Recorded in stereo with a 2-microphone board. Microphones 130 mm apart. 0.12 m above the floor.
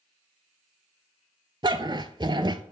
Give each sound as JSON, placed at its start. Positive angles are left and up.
{"t": 1.6, "sound": "a dog barking", "side_deg": -35, "distance_m": 0.6}